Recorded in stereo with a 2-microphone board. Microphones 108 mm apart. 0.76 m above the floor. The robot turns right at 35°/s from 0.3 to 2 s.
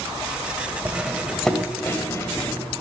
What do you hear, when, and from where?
0.8 s cutlery clinking: 15° right (ahead or behind), 1.9 m; by 2.8 s 25° left (ahead or behind), 1.9 m